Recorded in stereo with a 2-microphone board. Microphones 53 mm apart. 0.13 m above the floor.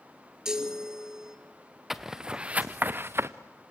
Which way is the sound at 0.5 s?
10° right (ahead or behind).